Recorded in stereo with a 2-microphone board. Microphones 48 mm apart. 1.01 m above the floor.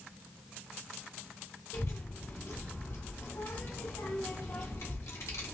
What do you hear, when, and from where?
1.7 s a child speaking: 75° left (ahead or behind), 1.4 m